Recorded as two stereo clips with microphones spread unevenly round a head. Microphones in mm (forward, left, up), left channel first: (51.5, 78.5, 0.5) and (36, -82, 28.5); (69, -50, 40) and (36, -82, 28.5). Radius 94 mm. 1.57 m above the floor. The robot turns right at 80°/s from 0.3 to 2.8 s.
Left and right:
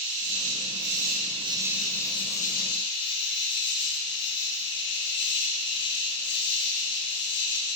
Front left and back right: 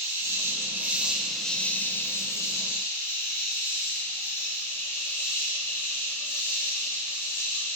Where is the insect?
130° right, 1.1 m; by 7.8 s 70° left, 1.1 m.